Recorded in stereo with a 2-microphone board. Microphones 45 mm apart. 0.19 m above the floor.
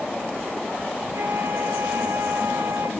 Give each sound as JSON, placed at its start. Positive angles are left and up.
{"t": 1.1, "sound": "a flute", "side_deg": -75, "distance_m": 3.5}